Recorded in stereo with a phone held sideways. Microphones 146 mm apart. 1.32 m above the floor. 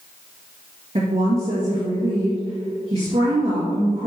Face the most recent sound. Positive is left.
turn(degrees=-45)  # may be behind; listen again after turning